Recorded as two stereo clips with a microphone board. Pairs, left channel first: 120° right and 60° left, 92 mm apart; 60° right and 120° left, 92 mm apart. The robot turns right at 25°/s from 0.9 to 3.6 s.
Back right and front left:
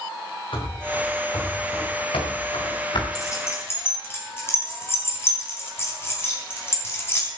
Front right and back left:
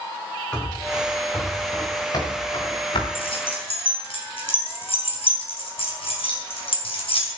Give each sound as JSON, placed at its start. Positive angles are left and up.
{"t": 0.5, "sound": "running footsteps", "azimuth_deg": -140, "distance_m": 6.5}
{"t": 3.1, "sound": "keys jangling", "azimuth_deg": -70, "distance_m": 4.5}